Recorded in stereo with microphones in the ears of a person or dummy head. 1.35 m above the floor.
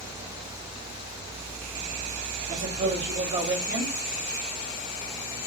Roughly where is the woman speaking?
Right.